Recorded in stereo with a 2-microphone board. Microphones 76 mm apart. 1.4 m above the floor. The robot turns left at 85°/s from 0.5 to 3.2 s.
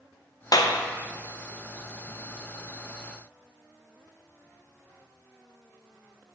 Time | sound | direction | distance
0.5 | a clap | 55° left (ahead or behind) | 0.6 m